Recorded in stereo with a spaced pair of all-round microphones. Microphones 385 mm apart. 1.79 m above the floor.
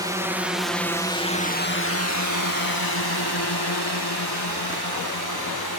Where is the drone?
10° right (ahead or behind); by 5.8 s 65° left (ahead or behind).